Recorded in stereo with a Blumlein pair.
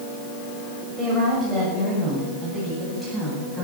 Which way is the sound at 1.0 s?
5° right.